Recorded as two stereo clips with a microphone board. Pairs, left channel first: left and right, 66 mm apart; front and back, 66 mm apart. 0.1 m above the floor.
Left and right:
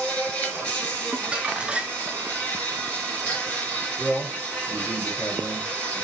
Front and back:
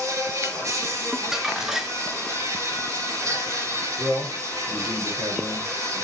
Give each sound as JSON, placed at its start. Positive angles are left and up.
{"t": 0.0, "sound": "an insect", "azimuth_deg": 160, "distance_m": 5.0}
{"t": 1.1, "sound": "crumpling", "azimuth_deg": -110, "distance_m": 0.9}
{"t": 4.0, "sound": "a man speaking", "azimuth_deg": 160, "distance_m": 3.5}